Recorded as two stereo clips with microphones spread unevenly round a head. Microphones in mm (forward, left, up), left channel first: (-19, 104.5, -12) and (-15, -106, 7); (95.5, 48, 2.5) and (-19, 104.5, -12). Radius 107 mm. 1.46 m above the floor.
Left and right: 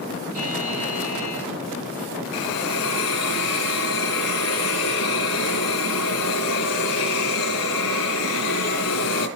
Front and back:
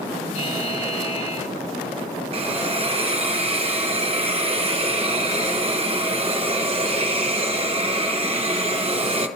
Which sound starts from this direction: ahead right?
A buzzer, at 0.3 s.